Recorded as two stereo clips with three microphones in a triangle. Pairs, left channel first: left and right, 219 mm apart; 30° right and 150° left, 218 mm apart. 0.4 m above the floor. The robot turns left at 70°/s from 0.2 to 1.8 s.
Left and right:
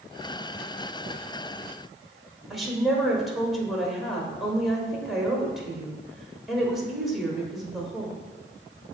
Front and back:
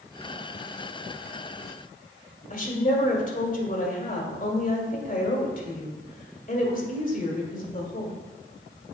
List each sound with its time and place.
2.5 s a woman speaking: straight ahead, 1.4 m